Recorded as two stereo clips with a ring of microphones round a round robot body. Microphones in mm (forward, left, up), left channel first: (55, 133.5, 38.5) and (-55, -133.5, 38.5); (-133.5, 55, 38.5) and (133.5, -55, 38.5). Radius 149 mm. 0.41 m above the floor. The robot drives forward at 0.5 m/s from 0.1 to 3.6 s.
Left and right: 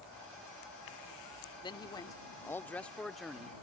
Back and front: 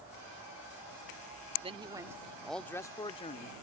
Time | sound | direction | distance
1.6 | a man speaking | 15° left | ?